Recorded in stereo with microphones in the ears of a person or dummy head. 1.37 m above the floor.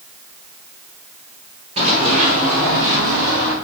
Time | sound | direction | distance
1.8 | running footsteps | 30° right (ahead or behind) | 1.8 m